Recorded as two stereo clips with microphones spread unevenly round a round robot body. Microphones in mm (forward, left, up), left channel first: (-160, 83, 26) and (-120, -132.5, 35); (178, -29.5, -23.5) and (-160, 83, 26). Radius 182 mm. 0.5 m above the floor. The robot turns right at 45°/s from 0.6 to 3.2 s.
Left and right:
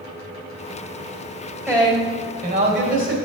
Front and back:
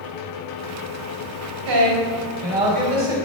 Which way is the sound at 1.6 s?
160° right.